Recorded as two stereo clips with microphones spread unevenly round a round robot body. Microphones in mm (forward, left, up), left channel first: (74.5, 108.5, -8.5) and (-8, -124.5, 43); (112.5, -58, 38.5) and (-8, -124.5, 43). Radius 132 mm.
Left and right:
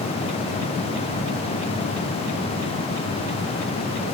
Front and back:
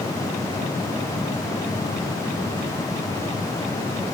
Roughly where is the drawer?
I don't hear a drawer.